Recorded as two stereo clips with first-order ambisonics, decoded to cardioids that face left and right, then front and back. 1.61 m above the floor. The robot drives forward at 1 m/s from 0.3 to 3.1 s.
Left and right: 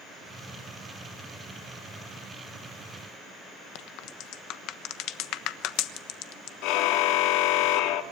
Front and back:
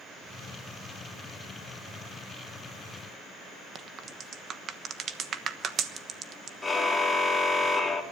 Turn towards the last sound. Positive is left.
turn(degrees=80)